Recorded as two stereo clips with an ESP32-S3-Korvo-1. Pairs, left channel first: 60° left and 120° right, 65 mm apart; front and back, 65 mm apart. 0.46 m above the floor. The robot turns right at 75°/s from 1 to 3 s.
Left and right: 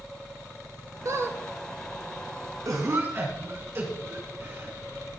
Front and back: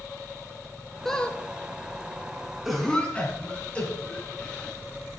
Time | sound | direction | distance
1.1 | a squeak | 85° right | 1.0 m
2.6 | a cough | 95° right | 4 m